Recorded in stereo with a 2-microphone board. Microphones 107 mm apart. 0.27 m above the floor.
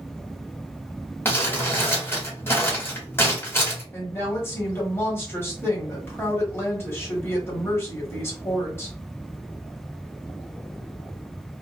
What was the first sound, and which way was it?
Crumpling, 25° left (ahead or behind).